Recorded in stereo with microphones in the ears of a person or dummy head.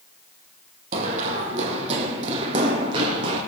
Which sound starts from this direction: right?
Running footsteps, at 0.9 s.